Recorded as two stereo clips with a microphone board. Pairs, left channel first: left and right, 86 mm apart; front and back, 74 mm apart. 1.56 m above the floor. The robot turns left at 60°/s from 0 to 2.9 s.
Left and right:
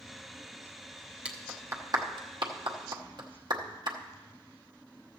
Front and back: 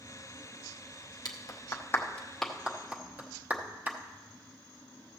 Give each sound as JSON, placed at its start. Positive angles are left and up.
{"t": 1.2, "sound": "a clap", "azimuth_deg": -15, "distance_m": 0.9}